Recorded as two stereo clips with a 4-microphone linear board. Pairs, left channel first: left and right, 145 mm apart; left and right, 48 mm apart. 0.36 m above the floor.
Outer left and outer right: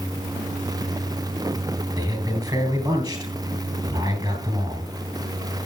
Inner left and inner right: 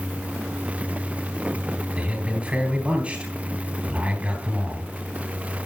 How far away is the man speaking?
About 3.5 m.